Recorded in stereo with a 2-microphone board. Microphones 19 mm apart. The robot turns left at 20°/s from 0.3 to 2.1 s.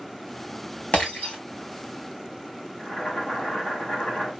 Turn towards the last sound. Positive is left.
turn(degrees=60)  # may be behind; listen again after turning